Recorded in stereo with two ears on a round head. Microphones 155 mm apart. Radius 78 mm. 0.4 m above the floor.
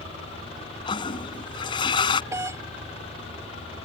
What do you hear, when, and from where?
0.9 s a toilet flushing: 30° left (ahead or behind)
2.3 s a doorbell: 15° right (ahead or behind)